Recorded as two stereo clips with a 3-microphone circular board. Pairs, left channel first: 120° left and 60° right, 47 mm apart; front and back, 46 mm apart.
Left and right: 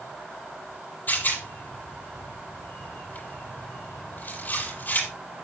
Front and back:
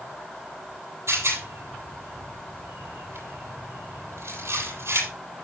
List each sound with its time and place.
1.1 s a rattle: 165° left, 8 m